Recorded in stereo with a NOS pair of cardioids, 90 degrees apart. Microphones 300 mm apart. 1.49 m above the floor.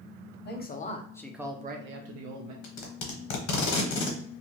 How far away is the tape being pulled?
About 1.1 m.